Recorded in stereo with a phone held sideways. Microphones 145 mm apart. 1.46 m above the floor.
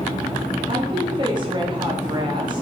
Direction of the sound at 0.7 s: 35° right (ahead or behind).